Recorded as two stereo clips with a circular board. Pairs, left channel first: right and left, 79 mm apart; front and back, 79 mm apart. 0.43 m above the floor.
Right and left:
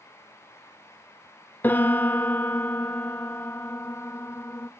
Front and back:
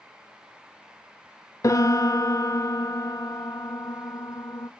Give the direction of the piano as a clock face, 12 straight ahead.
1 o'clock.